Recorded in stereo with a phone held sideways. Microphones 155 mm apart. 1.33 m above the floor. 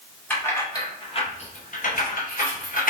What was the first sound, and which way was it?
Keys jangling, 10° left (ahead or behind).